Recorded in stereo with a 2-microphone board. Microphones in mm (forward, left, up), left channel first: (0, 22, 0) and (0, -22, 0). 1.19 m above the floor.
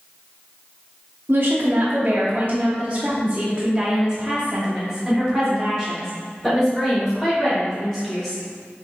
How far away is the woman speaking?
About 1.3 m.